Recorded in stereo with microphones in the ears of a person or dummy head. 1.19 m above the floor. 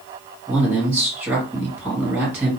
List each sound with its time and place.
0.5 s a man speaking: 10° right (ahead or behind), 1.7 m